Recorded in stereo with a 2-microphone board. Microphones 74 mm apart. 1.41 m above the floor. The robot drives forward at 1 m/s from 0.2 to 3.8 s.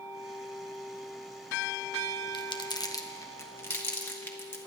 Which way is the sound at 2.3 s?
85° left.